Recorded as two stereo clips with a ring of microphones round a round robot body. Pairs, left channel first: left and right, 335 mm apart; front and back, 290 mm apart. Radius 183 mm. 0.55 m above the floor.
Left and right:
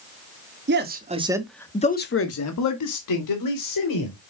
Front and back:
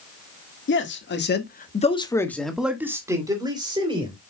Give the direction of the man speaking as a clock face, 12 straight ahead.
1 o'clock.